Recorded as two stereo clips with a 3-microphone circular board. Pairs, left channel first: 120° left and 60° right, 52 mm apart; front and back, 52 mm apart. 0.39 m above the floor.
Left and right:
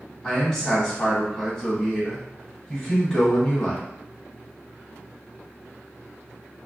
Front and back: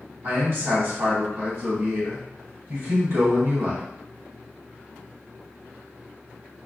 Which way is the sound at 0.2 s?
170° right.